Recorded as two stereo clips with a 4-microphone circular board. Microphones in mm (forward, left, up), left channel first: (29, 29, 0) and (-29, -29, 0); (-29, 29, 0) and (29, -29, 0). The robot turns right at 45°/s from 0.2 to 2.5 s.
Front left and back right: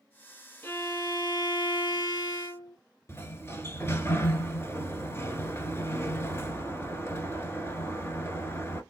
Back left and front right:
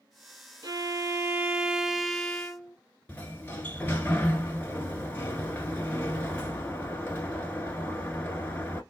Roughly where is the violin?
Ahead.